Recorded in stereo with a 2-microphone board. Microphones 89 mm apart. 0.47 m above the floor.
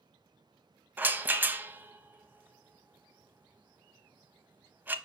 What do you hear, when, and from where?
1.0 s a rattle: 20° right (ahead or behind), 0.6 m